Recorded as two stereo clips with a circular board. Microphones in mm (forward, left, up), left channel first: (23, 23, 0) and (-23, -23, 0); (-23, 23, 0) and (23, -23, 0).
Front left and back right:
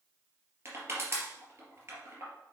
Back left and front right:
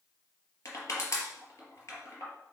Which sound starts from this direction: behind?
Crushing, at 0.7 s.